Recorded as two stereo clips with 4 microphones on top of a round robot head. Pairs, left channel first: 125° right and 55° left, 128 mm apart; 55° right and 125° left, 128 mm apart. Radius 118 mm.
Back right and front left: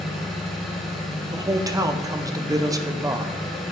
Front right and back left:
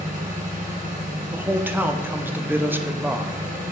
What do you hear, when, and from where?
0.0 s an engine running: 145° left, 2.5 m
1.3 s a man speaking: 70° left, 0.7 m